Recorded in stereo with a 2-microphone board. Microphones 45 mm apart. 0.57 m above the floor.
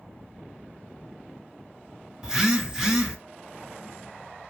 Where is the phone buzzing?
10° right (ahead or behind), 0.7 m.